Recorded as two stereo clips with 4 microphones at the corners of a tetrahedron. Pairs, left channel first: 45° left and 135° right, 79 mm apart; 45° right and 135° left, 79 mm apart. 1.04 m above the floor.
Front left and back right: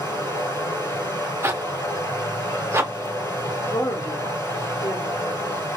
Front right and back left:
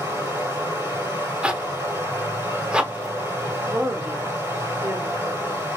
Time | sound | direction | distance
0.0 | running water | 85° left | 1.7 m
1.4 | a zipper | 155° right | 0.5 m
3.7 | a woman speaking | 80° left | 1.3 m